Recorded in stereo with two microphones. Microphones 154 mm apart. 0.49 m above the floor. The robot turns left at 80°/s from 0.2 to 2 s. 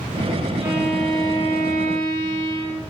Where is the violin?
160° right, 7.5 m; by 2.8 s 90° left, 7.5 m.